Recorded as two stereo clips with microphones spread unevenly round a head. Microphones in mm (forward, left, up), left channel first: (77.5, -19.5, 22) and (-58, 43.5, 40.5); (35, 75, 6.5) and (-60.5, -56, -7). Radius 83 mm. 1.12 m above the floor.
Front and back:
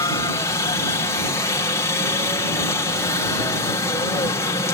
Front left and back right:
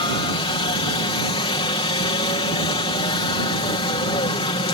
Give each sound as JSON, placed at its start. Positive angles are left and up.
{"t": 0.0, "sound": "a helicopter", "azimuth_deg": 15}